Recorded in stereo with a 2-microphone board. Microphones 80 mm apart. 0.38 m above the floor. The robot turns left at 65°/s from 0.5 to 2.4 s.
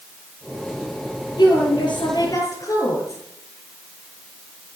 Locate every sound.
1.4 s a woman speaking: 115° left, 5.5 m; by 3.2 s 45° left, 5.5 m